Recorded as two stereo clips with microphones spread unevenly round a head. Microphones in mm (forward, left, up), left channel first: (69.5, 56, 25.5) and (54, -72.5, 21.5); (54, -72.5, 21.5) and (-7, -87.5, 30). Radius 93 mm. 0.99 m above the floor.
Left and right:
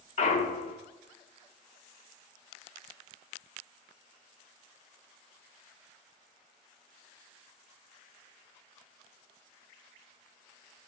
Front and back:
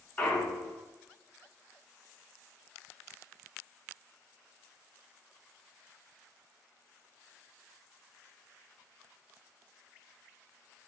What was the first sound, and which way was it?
A clunk, 85° left.